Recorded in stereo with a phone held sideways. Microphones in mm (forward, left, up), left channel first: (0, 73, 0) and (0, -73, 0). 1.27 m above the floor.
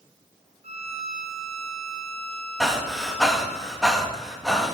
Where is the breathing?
Centre (ahead or behind), 1.1 m.